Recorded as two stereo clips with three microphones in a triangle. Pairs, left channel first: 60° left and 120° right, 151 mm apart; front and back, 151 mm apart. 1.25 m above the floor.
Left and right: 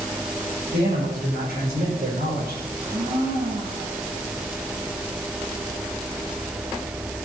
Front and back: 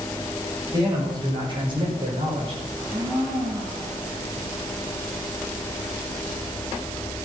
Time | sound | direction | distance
0.7 | a man speaking | 120° right | 6 m
2.7 | a blender | 115° right | 6 m